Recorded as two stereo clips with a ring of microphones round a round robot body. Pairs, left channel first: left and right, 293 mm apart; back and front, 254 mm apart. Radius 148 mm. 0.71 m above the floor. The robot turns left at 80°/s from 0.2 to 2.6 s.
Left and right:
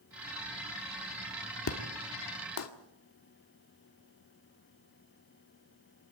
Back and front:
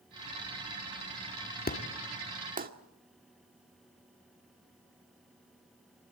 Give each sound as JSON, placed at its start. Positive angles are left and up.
{"t": 1.7, "sound": "an explosion", "azimuth_deg": 130, "distance_m": 1.8}